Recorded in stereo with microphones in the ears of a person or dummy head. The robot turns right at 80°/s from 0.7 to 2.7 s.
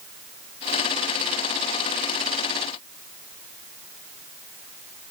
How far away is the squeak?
I don't hear a squeak.